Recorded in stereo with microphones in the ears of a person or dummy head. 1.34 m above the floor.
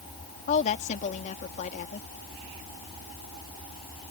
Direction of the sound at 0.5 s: 40° left (ahead or behind).